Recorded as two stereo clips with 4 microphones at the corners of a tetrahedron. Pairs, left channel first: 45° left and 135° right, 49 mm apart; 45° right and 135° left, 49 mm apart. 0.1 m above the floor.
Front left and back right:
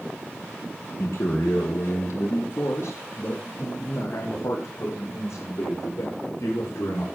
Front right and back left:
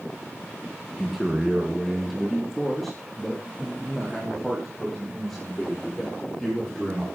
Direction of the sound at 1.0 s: 40° left.